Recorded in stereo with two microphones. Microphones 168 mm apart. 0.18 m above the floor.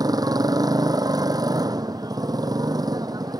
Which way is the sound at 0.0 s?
25° right (ahead or behind).